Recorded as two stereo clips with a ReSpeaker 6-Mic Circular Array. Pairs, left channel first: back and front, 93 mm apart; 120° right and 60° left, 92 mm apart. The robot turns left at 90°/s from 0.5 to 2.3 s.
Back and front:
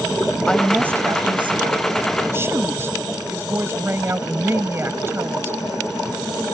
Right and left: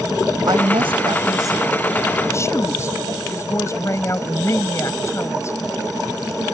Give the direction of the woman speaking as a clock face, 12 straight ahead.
9 o'clock.